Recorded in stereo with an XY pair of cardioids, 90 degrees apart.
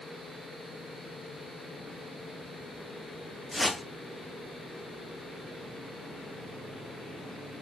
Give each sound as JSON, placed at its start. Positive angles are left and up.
{"t": 3.5, "sound": "a whoosh", "azimuth_deg": 15, "distance_m": 2.0}